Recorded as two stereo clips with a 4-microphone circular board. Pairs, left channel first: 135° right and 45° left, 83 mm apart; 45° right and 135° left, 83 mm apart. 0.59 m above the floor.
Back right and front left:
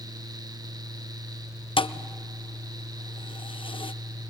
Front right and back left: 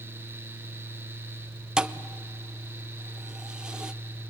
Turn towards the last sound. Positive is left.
turn(degrees=-145)